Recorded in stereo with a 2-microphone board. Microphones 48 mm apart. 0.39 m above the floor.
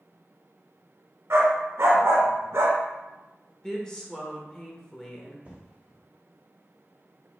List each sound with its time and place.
1.3 s a dog barking: 65° right (ahead or behind), 1.0 m
3.6 s a woman speaking: 15° left (ahead or behind), 0.8 m
5.5 s an explosion: 30° right (ahead or behind), 1.4 m